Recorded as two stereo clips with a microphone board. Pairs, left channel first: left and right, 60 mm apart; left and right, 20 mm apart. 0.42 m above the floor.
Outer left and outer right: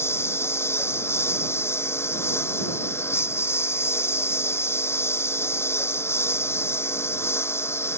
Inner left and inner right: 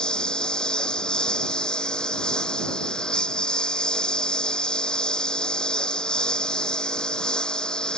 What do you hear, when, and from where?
0.0 s a lawn mower: 40° left (ahead or behind)